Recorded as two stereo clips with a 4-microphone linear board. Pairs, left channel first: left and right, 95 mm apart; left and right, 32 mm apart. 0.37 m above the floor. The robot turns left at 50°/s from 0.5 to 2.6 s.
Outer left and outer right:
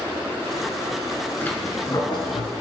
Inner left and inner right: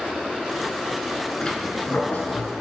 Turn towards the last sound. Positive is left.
turn(degrees=105)